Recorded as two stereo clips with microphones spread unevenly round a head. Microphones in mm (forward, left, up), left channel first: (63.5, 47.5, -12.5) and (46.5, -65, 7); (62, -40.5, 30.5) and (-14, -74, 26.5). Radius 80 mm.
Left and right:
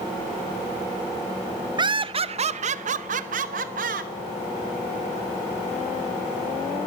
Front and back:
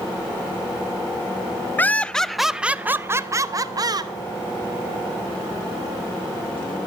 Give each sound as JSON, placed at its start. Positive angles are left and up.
{"t": 1.8, "sound": "laughter", "azimuth_deg": -45, "distance_m": 0.8}